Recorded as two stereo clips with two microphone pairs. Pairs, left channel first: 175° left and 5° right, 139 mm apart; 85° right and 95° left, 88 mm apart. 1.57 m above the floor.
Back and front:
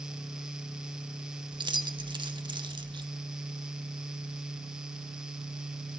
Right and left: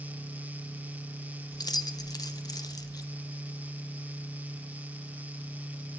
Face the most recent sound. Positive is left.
turn(degrees=-55)